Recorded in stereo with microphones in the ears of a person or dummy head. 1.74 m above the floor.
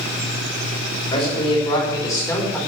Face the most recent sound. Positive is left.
turn(degrees=10)  # may be behind; listen again after turning